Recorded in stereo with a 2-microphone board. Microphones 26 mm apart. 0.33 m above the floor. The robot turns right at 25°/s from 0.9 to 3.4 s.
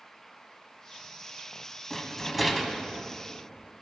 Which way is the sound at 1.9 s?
10° left (ahead or behind).